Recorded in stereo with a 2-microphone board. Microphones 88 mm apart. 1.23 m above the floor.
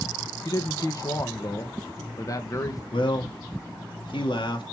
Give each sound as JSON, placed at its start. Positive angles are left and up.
{"t": 0.5, "sound": "a man speaking", "side_deg": 40, "distance_m": 1.4}
{"t": 2.9, "sound": "a man speaking", "side_deg": 70, "distance_m": 2.5}